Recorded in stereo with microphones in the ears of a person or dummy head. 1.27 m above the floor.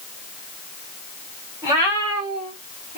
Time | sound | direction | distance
1.6 | a cat meowing | 15° right (ahead or behind) | 1.9 m